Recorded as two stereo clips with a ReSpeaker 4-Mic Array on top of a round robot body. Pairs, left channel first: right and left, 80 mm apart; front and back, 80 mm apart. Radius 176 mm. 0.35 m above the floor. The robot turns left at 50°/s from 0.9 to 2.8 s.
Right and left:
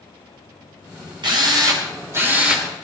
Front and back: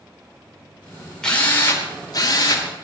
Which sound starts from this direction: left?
A drill, at 1.2 s.